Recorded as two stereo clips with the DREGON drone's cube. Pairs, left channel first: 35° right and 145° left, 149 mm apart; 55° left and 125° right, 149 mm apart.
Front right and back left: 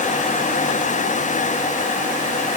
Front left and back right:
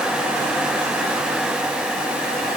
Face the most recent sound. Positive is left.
No sound to turn to.